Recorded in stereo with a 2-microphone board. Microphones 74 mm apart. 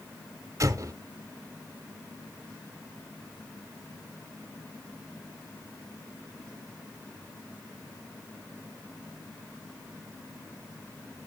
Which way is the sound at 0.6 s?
45° right (ahead or behind).